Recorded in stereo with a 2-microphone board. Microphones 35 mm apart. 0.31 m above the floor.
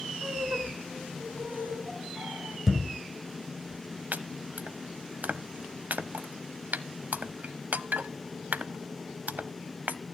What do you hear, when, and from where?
0.2 s laughter: 70° right (ahead or behind), 4 m; by 2.6 s 80° right, 6.5 m
2.7 s a thud: 10° right (ahead or behind), 1.1 m
4.1 s chopping: 60° right (ahead or behind), 0.7 m